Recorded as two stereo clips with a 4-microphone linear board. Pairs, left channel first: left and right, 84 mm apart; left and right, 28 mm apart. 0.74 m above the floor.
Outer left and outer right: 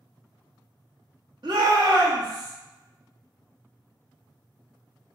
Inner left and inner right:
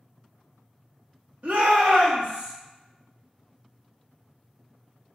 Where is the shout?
60° right (ahead or behind), 1.0 m; by 2.5 s 55° right (ahead or behind), 1.5 m.